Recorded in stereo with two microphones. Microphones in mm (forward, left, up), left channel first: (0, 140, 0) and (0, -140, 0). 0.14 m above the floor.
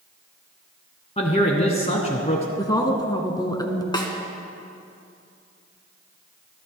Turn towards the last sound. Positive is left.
turn(degrees=15)  # may be behind; listen again after turning